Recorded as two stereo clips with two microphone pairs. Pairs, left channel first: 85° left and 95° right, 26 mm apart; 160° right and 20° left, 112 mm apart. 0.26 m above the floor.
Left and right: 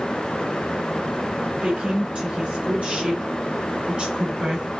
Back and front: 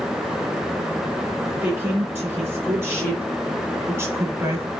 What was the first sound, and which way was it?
A woman speaking, 50° right.